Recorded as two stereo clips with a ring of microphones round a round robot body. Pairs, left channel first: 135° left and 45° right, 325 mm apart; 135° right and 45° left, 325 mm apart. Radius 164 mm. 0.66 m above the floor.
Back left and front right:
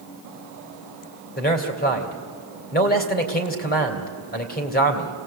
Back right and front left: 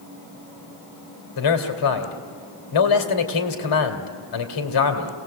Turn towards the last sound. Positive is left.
turn(degrees=-160)